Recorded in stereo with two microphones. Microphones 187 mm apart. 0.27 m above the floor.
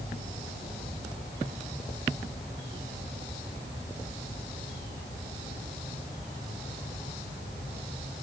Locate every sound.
Only background noise.